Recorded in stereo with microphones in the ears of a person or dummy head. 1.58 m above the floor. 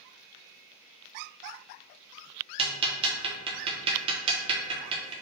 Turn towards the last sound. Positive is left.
turn(degrees=-30)  # may be behind; listen again after turning